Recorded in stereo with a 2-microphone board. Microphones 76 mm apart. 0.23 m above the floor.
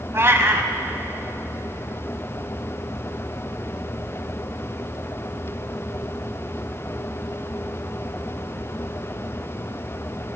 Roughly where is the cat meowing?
Right.